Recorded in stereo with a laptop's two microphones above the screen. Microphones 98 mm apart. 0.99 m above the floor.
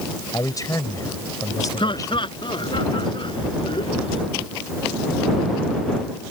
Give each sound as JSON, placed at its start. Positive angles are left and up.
{"t": 0.3, "sound": "a man speaking", "side_deg": 35}
{"t": 1.8, "sound": "laughter", "side_deg": 55}